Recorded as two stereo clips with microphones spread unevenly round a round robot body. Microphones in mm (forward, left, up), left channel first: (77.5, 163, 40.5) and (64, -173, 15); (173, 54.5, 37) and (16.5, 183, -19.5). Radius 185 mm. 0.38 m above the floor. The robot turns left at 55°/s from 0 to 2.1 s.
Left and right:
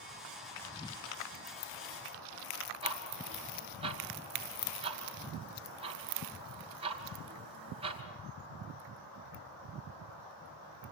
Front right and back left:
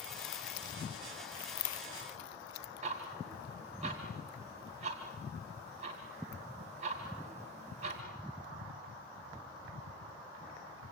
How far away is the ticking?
About 1.9 m.